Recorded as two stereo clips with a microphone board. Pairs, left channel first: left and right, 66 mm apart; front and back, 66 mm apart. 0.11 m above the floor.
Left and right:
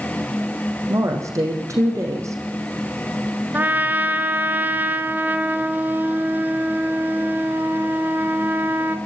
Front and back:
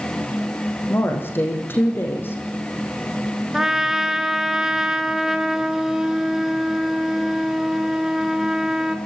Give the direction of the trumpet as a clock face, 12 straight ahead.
4 o'clock.